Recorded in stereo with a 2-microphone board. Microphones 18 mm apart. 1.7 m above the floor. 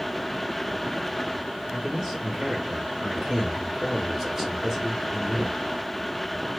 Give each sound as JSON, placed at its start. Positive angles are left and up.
{"t": 1.7, "sound": "a man speaking", "side_deg": -10, "distance_m": 2.5}